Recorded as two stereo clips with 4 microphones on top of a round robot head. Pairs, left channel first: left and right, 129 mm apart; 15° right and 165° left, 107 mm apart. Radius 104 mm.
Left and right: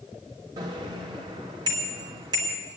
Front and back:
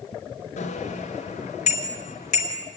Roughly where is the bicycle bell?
Ahead right.